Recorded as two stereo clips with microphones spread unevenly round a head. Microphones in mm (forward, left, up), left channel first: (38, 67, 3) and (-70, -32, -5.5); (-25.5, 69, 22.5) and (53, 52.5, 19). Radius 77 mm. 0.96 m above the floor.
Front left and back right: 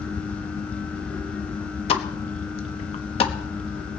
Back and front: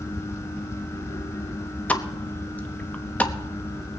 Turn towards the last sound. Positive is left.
turn(degrees=95)